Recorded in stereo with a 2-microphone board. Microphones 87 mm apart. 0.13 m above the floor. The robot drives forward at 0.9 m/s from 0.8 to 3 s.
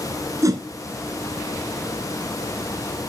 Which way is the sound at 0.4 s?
40° right (ahead or behind).